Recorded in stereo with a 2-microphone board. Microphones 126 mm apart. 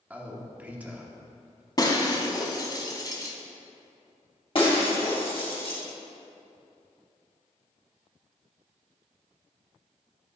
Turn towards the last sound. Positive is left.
turn(degrees=45)  # may be behind; listen again after turning